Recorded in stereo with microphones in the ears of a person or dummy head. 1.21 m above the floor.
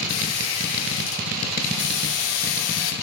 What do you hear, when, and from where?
0.1 s a squeak: 70° left (ahead or behind), 0.8 m